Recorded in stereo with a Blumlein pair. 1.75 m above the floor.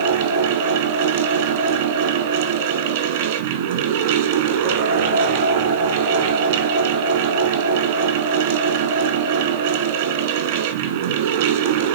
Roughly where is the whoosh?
I don't hear a whoosh.